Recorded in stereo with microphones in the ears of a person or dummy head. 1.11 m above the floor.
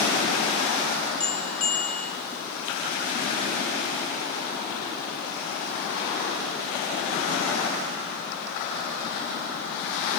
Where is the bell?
5° left (ahead or behind), 1.2 m.